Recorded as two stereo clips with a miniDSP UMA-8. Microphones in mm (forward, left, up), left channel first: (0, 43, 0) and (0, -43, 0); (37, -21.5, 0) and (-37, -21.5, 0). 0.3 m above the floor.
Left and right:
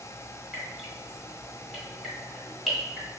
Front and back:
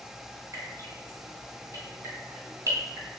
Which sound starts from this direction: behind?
Dripping, at 0.5 s.